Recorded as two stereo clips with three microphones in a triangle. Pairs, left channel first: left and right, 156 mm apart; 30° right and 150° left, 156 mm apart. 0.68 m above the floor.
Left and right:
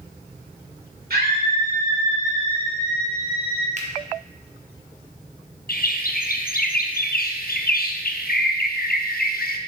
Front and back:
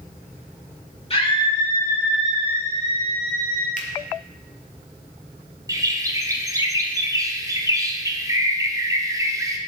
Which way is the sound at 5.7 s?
85° left.